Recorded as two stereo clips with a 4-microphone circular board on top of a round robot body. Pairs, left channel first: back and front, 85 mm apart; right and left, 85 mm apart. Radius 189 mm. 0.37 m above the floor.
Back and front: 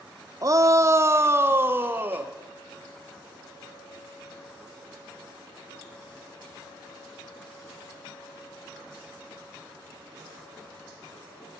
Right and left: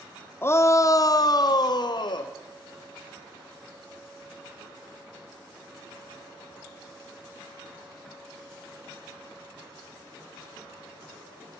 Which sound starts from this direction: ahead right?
A shout, at 0.4 s.